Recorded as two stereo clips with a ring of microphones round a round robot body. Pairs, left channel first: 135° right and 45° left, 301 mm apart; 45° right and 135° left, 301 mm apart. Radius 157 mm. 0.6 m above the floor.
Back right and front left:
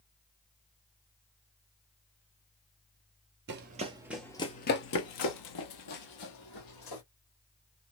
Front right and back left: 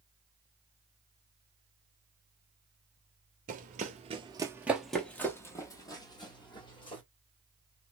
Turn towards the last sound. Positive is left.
turn(degrees=-120)